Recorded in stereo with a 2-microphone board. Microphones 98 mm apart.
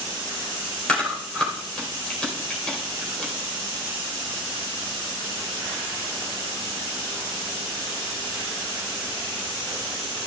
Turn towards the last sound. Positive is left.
turn(degrees=10)  # may be behind; listen again after turning